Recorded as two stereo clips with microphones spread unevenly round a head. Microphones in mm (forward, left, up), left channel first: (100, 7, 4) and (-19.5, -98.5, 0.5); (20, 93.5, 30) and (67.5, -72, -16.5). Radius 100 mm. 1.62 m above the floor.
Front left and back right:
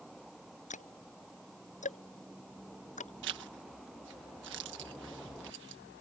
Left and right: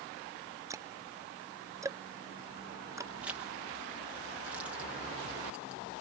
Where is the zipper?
160° right.